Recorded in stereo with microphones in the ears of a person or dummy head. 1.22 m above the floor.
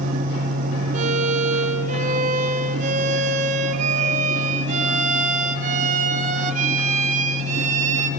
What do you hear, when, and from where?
0.9 s a violin: 45° right (ahead or behind), 1.9 m